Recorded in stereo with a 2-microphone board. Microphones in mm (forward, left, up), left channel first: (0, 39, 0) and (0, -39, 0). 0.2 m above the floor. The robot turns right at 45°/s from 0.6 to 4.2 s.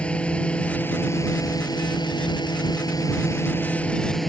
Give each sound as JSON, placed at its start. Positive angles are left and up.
{"t": 0.0, "sound": "a drone", "azimuth_deg": 15}